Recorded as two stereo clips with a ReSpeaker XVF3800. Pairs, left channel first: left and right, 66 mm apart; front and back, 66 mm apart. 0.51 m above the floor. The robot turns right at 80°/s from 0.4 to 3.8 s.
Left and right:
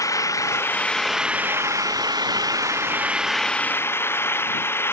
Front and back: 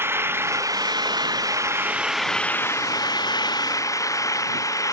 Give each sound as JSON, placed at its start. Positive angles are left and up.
{"t": 0.0, "sound": "an engine running", "azimuth_deg": 125}